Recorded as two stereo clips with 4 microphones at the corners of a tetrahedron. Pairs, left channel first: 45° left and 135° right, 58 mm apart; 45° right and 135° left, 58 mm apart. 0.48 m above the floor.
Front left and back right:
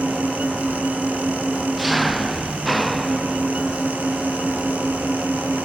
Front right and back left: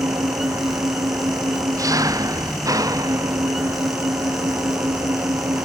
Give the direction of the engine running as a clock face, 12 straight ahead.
8 o'clock.